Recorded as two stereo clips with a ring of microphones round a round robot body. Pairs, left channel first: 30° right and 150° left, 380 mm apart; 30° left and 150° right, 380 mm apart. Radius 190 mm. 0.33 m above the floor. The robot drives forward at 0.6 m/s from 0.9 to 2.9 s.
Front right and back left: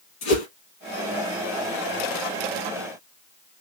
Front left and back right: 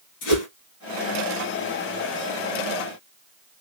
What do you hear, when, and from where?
0.2 s a whoosh: straight ahead, 2 m